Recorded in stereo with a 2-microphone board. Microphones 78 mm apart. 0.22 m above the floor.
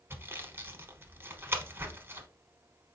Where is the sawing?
30° right (ahead or behind), 0.7 m.